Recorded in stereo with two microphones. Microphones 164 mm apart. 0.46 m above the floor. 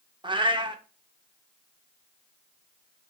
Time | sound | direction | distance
0.2 | a cat meowing | 30° right (ahead or behind) | 0.5 m